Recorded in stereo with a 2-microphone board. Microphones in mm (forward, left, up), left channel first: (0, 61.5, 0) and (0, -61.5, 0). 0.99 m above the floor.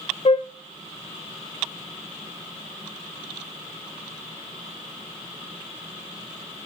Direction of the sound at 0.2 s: 55° left (ahead or behind).